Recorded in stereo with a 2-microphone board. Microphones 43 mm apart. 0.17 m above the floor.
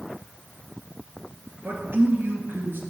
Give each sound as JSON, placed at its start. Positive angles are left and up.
{"t": 1.6, "sound": "a man speaking", "side_deg": -65, "distance_m": 2.5}